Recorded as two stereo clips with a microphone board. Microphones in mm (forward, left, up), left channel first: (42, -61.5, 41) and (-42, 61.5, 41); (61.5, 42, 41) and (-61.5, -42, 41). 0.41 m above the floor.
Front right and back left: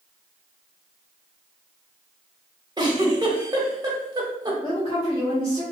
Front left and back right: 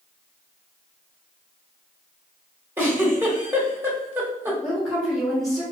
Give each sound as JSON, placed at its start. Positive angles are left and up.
{"t": 2.8, "sound": "a giggle", "azimuth_deg": 155, "distance_m": 0.8}
{"t": 4.6, "sound": "a woman speaking", "azimuth_deg": -50, "distance_m": 1.5}